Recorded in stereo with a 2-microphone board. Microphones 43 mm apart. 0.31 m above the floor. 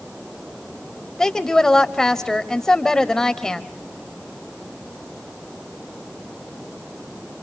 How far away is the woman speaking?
About 1.2 m.